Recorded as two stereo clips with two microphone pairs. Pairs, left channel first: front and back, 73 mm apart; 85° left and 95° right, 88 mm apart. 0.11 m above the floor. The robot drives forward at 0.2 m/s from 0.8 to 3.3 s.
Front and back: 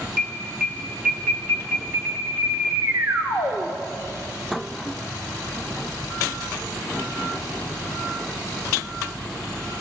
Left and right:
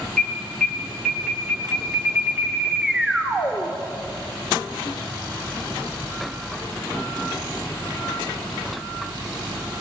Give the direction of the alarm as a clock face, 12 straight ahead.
6 o'clock.